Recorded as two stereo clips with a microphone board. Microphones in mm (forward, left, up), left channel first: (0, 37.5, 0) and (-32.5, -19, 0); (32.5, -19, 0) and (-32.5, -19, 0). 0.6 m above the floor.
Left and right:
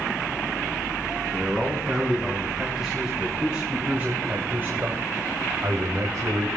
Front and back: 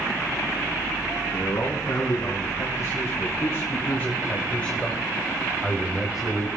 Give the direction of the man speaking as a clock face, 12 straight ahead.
1 o'clock.